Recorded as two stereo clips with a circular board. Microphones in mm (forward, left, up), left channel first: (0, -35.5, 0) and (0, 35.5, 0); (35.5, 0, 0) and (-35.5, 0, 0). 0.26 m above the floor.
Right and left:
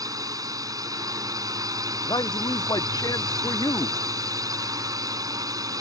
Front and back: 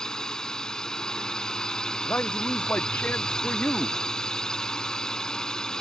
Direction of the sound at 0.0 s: 80° left.